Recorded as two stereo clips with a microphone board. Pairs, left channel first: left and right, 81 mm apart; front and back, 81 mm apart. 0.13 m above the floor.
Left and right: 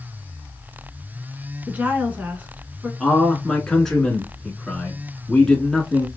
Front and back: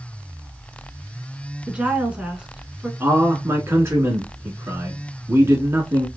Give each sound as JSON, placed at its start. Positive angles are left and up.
{"t": 1.7, "sound": "a woman speaking", "azimuth_deg": -120, "distance_m": 1.1}
{"t": 3.0, "sound": "a man speaking", "azimuth_deg": 170, "distance_m": 1.2}